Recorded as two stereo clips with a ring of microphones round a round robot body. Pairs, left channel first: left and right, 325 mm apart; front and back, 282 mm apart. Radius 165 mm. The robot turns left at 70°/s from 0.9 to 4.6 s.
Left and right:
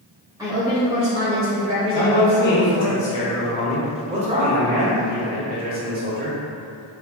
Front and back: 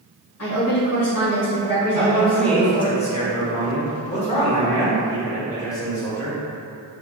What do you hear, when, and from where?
0.4 s a woman speaking: 15° right, 1.5 m; by 2.9 s 155° right, 1.5 m
1.9 s a man speaking: 120° left, 1.0 m; by 6.4 s 65° right, 1.0 m